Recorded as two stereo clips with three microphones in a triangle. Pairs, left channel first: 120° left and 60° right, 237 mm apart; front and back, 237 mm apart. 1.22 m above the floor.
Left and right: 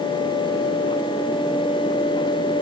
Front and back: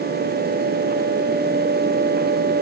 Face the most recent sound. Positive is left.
No sound to turn to.